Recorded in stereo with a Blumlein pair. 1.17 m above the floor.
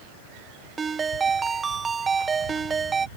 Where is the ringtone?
15° right.